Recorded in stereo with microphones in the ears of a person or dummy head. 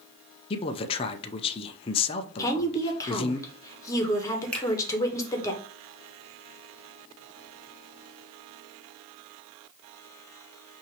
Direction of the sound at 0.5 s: 25° left (ahead or behind).